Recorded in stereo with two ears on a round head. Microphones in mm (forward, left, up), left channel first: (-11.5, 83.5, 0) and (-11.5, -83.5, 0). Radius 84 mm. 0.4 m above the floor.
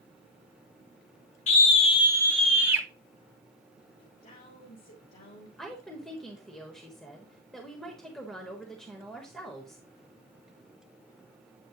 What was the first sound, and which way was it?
A scream, 35° left (ahead or behind).